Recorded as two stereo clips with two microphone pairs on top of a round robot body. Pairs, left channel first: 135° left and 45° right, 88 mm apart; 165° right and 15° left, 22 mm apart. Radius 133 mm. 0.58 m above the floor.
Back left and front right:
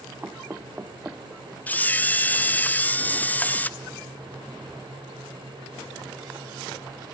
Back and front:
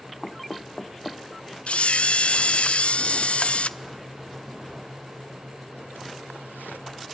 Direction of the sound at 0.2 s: 110° right.